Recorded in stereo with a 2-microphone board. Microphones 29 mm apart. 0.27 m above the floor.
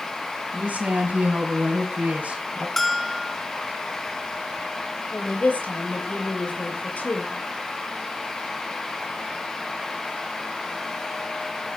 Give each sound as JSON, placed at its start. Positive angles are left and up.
{"t": 0.5, "sound": "a woman speaking", "side_deg": -60, "distance_m": 3.0}
{"t": 2.8, "sound": "a bell", "side_deg": 15, "distance_m": 1.5}
{"t": 5.1, "sound": "a woman speaking", "side_deg": 70, "distance_m": 6.0}